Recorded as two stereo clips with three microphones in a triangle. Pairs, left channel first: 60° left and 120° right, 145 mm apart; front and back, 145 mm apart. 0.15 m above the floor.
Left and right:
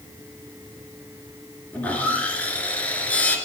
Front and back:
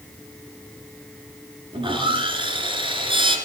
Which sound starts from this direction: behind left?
Sawing, at 1.7 s.